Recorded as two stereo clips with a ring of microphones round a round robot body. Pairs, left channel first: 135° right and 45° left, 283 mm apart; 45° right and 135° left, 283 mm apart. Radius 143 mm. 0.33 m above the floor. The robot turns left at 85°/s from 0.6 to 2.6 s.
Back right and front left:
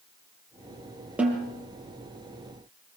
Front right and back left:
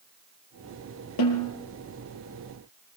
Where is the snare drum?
40° right, 5 m; by 1.5 s 65° right, 5 m.